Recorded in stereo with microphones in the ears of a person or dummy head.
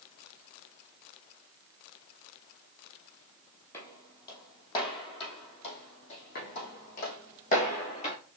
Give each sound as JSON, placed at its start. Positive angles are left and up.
{"t": 3.7, "sound": "footsteps", "side_deg": 15, "distance_m": 2.0}
{"t": 6.3, "sound": "footsteps", "side_deg": 50, "distance_m": 2.5}